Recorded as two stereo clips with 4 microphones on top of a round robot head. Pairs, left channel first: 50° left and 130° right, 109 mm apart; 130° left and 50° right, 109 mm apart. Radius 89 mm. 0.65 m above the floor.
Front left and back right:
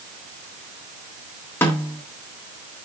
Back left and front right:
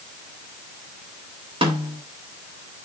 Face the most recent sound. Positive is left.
turn(degrees=-20)